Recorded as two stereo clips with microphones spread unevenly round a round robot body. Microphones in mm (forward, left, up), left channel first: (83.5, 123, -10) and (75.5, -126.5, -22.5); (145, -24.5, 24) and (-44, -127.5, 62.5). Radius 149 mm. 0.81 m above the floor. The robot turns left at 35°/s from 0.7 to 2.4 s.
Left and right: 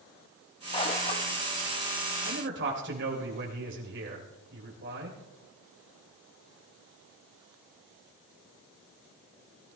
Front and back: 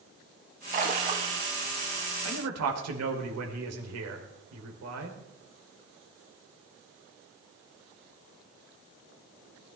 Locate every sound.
0.7 s a splash: 160° left, 1.1 m; by 1.4 s 135° left, 1.1 m
2.2 s a man speaking: 145° right, 3 m; by 5.2 s 150° right, 3 m